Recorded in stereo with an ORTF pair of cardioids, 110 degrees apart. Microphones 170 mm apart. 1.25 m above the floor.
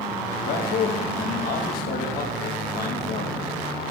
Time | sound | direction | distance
0.4 | a man speaking | 65° left | 1.9 m